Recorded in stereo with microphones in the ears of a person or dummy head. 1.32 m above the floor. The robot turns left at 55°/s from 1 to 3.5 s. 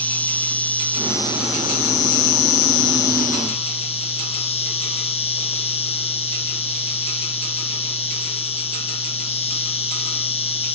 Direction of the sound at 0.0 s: 175° left.